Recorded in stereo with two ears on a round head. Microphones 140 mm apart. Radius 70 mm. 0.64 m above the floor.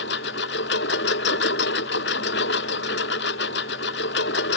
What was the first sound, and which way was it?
A lawn mower, 85° left.